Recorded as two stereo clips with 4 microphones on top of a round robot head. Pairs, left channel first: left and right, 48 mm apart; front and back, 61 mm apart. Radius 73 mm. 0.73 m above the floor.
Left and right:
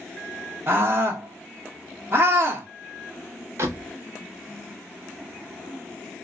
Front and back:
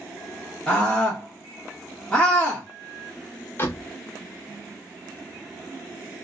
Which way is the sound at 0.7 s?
75° right.